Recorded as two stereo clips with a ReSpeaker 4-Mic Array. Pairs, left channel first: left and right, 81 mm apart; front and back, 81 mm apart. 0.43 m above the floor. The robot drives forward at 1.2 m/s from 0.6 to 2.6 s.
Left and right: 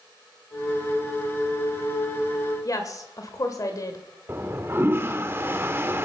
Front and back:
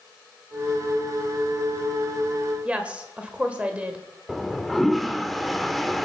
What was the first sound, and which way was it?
A woman speaking, 110° left.